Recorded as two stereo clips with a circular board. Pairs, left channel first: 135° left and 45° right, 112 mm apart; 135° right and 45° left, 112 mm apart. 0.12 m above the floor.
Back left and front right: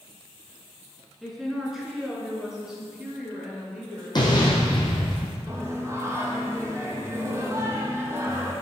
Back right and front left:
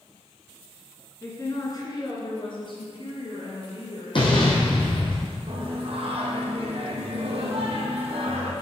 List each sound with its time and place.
1.2 s a woman speaking: 130° right, 1.6 m; by 5.1 s 125° right, 4 m
4.2 s an explosion: 175° right, 2.0 m
5.5 s singing: 20° left, 1.5 m